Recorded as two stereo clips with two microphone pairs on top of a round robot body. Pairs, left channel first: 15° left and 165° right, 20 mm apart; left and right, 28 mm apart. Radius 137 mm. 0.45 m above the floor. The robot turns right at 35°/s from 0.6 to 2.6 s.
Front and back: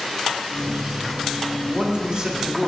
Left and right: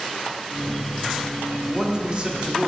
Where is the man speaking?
150° right, 1.4 m; by 2.7 s 115° right, 1.4 m.